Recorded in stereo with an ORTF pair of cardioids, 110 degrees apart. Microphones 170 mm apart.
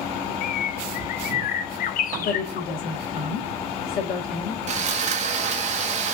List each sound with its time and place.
0.4 s a bird: 55° left, 0.6 m
2.2 s a woman speaking: 65° left, 1.8 m
4.7 s sawing: 40° right, 0.9 m